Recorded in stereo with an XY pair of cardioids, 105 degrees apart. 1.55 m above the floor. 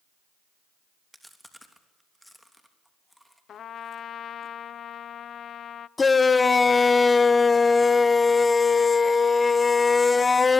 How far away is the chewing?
About 3 m.